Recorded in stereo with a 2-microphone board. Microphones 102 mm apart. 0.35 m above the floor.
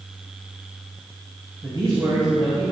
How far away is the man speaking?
About 2.5 m.